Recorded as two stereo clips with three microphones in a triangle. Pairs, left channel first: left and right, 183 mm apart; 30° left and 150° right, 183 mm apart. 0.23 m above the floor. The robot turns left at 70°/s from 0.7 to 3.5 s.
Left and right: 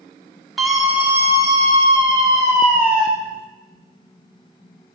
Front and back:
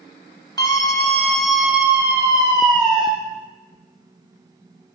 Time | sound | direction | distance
0.6 | a scream | 5° right | 1.1 m